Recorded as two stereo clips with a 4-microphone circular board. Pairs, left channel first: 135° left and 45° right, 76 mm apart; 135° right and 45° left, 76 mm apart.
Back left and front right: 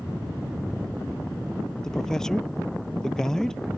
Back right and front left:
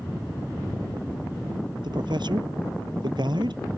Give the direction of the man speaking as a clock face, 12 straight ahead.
10 o'clock.